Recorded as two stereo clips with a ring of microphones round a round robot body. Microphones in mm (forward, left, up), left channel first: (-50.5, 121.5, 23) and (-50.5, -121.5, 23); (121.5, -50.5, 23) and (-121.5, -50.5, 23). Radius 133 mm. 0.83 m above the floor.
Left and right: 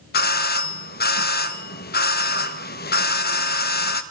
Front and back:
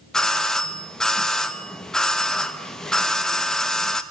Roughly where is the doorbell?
Left.